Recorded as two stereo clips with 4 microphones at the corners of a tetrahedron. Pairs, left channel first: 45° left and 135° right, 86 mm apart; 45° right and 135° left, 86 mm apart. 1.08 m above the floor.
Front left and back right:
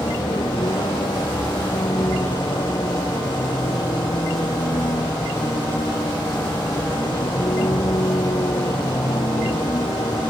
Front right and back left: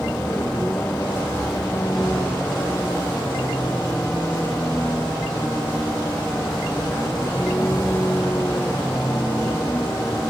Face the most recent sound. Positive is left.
turn(degrees=15)